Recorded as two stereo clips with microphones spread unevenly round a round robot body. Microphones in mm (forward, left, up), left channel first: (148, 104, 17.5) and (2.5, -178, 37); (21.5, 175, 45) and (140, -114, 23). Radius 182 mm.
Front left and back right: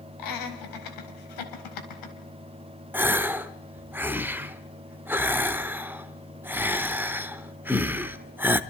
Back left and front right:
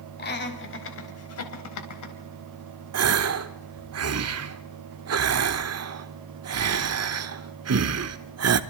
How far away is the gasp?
About 1.1 m.